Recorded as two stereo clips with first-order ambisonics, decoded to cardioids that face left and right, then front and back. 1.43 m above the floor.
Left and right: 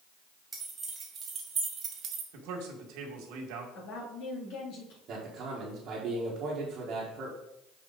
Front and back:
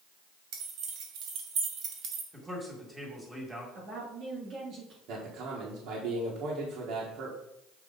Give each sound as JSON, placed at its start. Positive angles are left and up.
{"t": 0.5, "sound": "keys jangling", "azimuth_deg": -165, "distance_m": 2.5}
{"t": 2.3, "sound": "a man speaking", "azimuth_deg": -100, "distance_m": 2.0}
{"t": 3.8, "sound": "a woman speaking", "azimuth_deg": 125, "distance_m": 3.0}
{"t": 5.1, "sound": "a man speaking", "azimuth_deg": -145, "distance_m": 1.7}